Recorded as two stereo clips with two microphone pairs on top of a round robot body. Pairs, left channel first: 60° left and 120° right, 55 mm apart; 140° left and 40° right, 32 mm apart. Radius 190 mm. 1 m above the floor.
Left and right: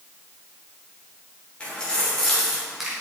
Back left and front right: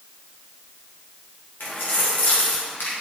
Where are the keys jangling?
135° left, 3.5 m; by 2.9 s 160° left, 3 m.